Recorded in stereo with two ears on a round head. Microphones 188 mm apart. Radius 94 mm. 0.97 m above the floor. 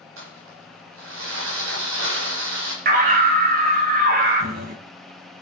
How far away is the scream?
About 3 m.